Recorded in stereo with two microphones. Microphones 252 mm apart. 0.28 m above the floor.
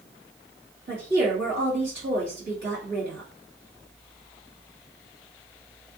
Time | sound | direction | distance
0.9 | a woman speaking | 45° right (ahead or behind) | 1.9 m